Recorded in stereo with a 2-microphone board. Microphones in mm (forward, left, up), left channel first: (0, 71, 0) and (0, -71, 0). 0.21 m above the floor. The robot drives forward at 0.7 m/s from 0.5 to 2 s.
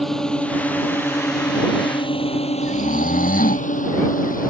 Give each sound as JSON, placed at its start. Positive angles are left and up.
{"t": 0.0, "sound": "a drone", "side_deg": 0}
{"t": 2.6, "sound": "snoring", "side_deg": 80}